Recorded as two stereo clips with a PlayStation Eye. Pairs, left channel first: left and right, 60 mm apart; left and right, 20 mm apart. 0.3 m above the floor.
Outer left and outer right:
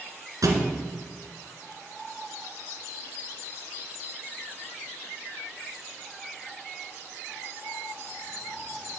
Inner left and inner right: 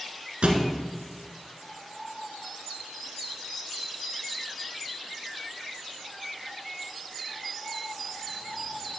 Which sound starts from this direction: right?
A thud, at 0.4 s.